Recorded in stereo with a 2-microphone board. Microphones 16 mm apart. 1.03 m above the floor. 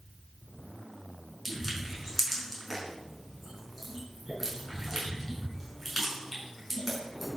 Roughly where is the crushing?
Centre.